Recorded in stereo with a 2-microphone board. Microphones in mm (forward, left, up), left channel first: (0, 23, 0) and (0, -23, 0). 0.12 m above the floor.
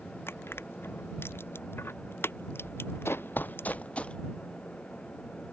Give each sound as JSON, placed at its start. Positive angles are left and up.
{"t": 0.3, "sound": "crushing", "side_deg": 55}
{"t": 3.0, "sound": "running footsteps", "side_deg": 60}